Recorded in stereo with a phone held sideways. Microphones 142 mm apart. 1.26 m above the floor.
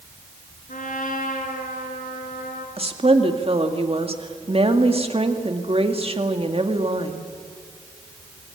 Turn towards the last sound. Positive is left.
turn(degrees=-45)  # may be behind; listen again after turning